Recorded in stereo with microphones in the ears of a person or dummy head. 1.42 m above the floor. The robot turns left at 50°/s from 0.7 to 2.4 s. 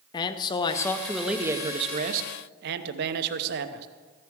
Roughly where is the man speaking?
Ahead.